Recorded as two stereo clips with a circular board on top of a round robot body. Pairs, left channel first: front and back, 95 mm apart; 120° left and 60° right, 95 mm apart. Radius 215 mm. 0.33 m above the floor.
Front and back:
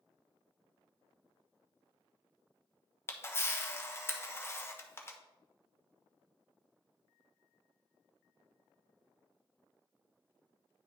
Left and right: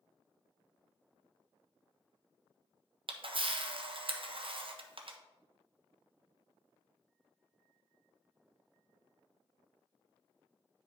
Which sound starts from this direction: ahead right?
A camera shutter, at 3.1 s.